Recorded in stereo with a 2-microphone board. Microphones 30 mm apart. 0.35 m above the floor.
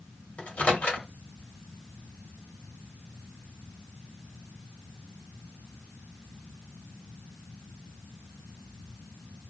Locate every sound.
0.4 s a microwave: 45° left (ahead or behind), 1.4 m